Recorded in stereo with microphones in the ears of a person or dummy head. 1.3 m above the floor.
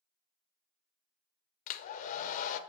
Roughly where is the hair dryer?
Left.